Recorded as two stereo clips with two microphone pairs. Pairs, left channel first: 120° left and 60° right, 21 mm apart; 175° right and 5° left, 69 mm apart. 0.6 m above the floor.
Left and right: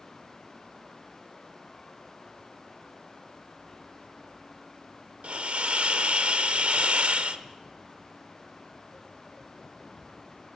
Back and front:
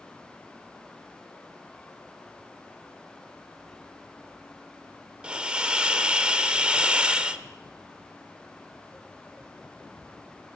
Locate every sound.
5.2 s a hiss: 70° right, 0.7 m